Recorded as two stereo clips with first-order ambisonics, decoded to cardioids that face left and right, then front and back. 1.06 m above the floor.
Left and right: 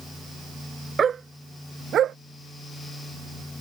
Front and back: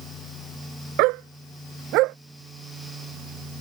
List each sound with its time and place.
1.0 s a dog barking: 160° right; by 2.2 s 145° right